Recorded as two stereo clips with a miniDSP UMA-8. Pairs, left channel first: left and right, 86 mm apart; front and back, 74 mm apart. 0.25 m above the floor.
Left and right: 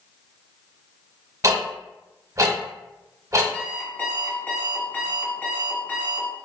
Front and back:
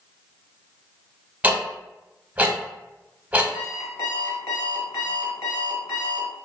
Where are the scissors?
No scissors in this recording.